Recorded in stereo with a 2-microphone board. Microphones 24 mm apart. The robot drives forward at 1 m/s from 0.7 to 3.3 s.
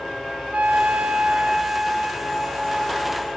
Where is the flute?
55° right (ahead or behind), 0.5 m; by 3.3 s 10° right (ahead or behind), 2.5 m.